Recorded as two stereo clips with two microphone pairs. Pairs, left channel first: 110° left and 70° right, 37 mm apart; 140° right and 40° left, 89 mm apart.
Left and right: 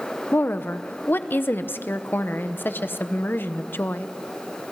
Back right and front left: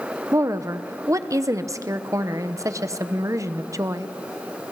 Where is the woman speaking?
90° left, 1.0 m.